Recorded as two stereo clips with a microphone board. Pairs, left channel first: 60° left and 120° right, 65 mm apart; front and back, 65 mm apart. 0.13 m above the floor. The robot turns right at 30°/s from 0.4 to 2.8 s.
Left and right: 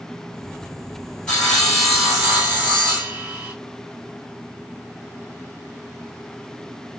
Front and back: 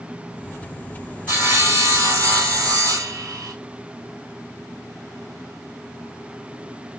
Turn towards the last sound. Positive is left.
turn(degrees=180)